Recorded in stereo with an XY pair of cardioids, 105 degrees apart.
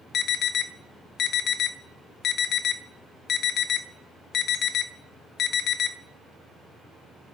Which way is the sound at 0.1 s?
65° left.